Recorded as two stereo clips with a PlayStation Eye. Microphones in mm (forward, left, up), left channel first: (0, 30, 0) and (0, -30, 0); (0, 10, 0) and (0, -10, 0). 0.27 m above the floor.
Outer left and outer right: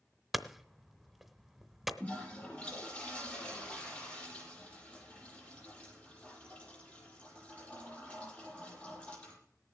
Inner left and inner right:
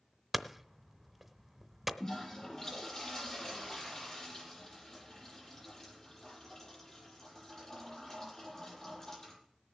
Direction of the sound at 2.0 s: 15° left (ahead or behind).